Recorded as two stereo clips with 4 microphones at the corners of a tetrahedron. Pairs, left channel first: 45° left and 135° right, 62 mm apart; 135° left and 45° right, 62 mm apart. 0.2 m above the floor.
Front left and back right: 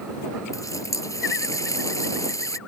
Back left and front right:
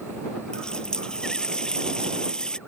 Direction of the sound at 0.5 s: 60° left.